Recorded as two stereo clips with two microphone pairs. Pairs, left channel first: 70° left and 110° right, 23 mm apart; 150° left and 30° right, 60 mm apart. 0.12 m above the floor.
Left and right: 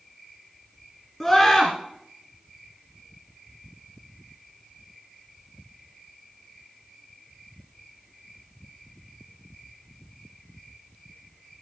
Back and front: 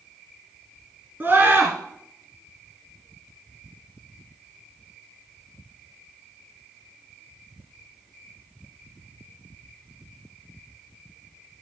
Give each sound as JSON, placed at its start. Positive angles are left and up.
{"t": 1.2, "sound": "a scream", "azimuth_deg": -15, "distance_m": 2.0}